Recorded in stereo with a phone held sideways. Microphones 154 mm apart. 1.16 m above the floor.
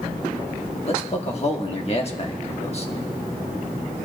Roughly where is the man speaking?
Left.